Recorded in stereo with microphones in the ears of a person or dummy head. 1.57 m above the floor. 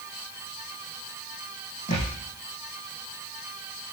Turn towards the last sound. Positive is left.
turn(degrees=40)  # may be behind; listen again after turning